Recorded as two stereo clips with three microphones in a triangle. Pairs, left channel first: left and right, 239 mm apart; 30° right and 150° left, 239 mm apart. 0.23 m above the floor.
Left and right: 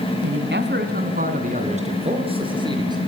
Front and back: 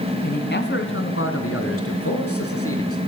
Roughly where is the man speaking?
Right.